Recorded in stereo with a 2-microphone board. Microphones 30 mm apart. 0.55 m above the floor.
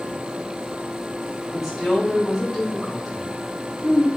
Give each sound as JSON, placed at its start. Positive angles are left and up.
{"t": 1.5, "sound": "a woman speaking", "side_deg": 0, "distance_m": 2.5}